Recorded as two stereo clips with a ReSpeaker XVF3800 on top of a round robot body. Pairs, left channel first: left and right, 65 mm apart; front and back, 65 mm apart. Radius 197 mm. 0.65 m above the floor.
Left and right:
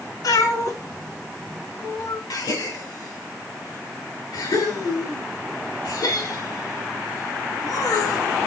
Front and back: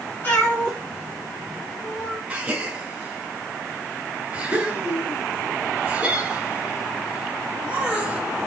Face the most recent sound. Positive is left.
turn(degrees=105)